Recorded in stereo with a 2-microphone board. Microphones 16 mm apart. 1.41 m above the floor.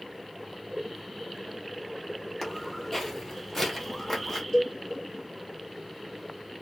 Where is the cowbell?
65° left (ahead or behind), 2 m.